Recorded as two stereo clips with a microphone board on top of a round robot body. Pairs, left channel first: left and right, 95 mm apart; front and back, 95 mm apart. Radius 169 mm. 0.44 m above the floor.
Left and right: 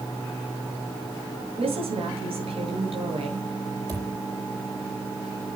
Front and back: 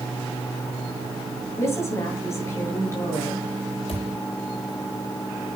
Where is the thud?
35° right, 9.5 m.